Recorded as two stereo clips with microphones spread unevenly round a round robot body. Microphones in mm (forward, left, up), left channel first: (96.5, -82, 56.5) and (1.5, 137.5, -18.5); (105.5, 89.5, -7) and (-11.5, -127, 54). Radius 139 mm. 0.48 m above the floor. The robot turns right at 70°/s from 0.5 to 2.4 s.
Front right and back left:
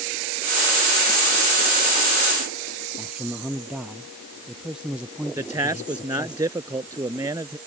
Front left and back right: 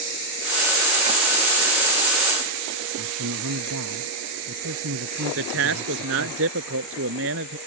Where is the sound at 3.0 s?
160° right.